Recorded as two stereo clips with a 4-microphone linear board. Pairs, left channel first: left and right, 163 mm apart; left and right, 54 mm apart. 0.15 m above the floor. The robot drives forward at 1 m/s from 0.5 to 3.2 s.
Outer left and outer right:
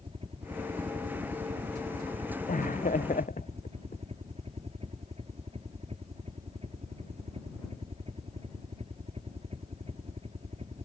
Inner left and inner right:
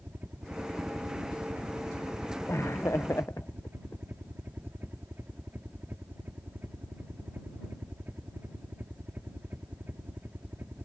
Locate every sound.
0.0 s a helicopter: 35° right (ahead or behind); by 10.8 s 40° right (ahead or behind)
2.5 s laughter: 55° left (ahead or behind)